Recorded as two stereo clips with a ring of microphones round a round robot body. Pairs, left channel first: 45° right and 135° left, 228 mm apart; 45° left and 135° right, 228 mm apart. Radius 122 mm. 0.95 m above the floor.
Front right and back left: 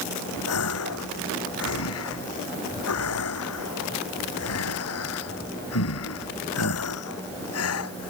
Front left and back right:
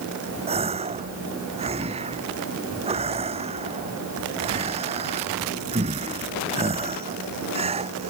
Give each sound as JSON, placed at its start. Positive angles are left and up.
{"t": 0.5, "sound": "a gasp", "azimuth_deg": -70}